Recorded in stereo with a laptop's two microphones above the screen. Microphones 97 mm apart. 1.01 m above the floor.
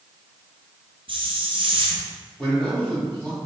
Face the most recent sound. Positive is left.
turn(degrees=10)  # may be behind; listen again after turning